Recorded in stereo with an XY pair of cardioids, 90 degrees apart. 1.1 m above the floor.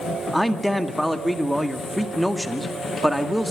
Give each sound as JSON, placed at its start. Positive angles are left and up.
{"t": 0.3, "sound": "a man speaking", "azimuth_deg": 0, "distance_m": 1.7}